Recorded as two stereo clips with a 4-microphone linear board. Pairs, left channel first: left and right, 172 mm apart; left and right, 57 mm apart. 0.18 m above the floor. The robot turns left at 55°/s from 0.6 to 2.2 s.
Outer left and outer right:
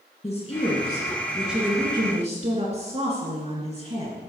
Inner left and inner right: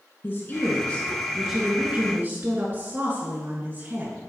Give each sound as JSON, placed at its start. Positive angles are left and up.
{"t": 0.2, "sound": "a woman speaking", "azimuth_deg": 45, "distance_m": 2.0}